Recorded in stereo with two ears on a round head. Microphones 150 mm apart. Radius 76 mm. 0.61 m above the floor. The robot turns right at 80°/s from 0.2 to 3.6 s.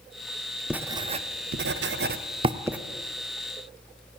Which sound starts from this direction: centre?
Writing, at 0.7 s.